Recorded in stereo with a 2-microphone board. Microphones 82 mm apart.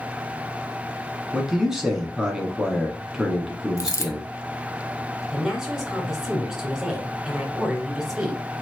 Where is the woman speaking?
5° right (ahead or behind), 2 m.